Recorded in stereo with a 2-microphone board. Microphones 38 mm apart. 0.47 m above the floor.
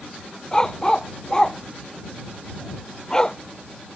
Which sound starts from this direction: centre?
A dog barking, at 0.5 s.